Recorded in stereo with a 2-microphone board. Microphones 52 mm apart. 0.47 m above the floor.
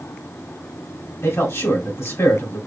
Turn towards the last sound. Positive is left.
turn(degrees=60)  # may be behind; listen again after turning